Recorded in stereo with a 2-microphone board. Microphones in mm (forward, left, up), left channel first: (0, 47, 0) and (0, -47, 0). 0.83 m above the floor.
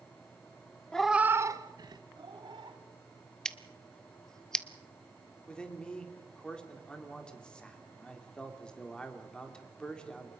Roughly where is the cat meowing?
Centre.